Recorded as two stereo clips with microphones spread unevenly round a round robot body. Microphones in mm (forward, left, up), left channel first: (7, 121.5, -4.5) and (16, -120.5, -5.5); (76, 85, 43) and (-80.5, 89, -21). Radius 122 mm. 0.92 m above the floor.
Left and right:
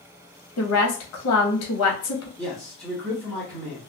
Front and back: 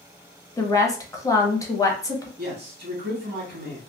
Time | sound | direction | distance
0.6 | a woman speaking | 80° left | 0.9 m
2.4 | a man speaking | 175° left | 1.4 m